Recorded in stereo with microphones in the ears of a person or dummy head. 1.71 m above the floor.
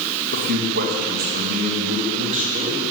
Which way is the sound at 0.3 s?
65° right (ahead or behind).